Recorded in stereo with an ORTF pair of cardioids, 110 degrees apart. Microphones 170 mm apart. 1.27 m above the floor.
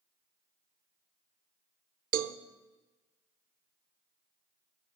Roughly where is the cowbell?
Ahead right.